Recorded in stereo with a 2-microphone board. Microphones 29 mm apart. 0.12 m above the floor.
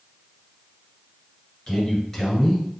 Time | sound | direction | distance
1.7 | a man speaking | 10° left (ahead or behind) | 1.5 m